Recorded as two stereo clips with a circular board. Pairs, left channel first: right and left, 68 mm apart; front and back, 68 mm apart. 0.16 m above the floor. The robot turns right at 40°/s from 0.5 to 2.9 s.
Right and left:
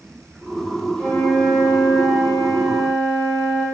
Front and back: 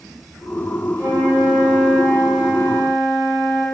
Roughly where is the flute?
Behind.